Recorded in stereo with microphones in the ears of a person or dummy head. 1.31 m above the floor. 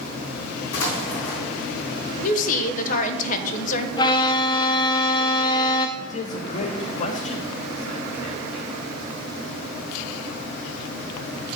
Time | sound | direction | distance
0.7 | an explosion | 65° left (ahead or behind) | 2.5 m
2.2 | a woman speaking | 40° left (ahead or behind) | 0.9 m
4.0 | a violin | 35° left (ahead or behind) | 0.6 m
6.0 | a man speaking | 50° left (ahead or behind) | 1.0 m